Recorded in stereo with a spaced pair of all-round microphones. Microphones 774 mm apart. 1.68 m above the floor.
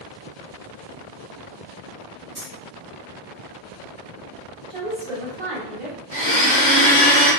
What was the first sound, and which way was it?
Keys jangling, 15° right (ahead or behind).